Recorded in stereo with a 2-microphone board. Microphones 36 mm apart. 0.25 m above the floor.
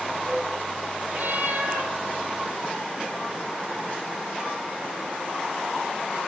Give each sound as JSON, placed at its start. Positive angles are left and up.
{"t": 1.1, "sound": "a cat meowing", "side_deg": -60, "distance_m": 1.6}